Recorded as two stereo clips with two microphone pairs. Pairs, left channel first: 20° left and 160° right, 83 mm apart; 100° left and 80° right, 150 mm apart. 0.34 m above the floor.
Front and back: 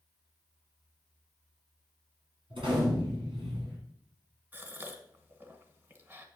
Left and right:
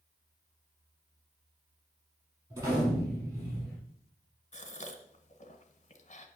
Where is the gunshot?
150° right, 4.5 m.